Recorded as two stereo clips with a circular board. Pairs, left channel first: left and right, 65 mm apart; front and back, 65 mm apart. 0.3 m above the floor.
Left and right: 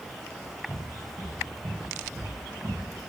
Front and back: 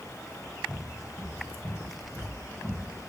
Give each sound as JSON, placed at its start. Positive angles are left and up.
{"t": 0.7, "sound": "footsteps", "azimuth_deg": -35, "distance_m": 2.5}